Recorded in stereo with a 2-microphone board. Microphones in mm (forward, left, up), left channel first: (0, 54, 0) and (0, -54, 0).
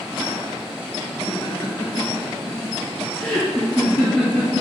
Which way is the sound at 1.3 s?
40° left (ahead or behind).